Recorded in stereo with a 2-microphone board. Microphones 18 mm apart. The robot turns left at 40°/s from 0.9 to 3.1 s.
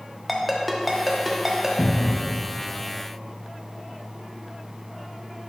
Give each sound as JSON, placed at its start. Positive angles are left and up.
{"t": 0.3, "sound": "a ringtone", "side_deg": -10, "distance_m": 0.8}
{"t": 1.8, "sound": "a cupboard door", "side_deg": 40, "distance_m": 0.7}